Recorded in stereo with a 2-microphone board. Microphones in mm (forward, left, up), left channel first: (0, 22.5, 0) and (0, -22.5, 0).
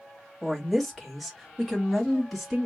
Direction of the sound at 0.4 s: 5° left (ahead or behind).